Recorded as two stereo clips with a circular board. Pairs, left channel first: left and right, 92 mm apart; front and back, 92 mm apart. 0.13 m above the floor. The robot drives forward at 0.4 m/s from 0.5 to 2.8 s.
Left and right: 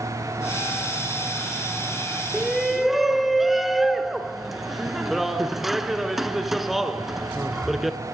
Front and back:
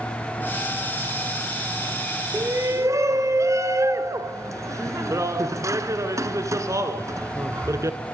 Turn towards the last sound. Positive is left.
turn(degrees=-175)